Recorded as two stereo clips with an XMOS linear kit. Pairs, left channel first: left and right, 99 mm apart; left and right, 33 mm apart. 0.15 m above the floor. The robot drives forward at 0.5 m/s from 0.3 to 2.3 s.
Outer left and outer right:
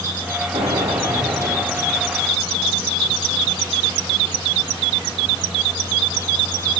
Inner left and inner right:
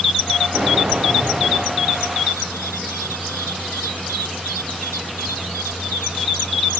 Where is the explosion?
85° right, 4.5 m; by 2.1 s 75° right (ahead or behind), 4.5 m.